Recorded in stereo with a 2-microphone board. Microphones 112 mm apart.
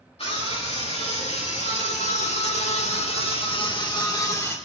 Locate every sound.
0.2 s a scream: 65° left (ahead or behind), 3 m; by 4.6 s 25° left (ahead or behind), 1.9 m